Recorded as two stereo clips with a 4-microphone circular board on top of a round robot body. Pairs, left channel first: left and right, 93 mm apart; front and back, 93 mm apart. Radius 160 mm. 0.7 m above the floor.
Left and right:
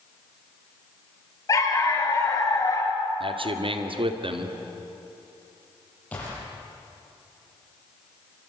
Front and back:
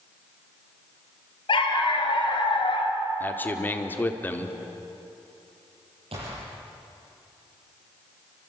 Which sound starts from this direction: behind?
A gunshot, at 6.1 s.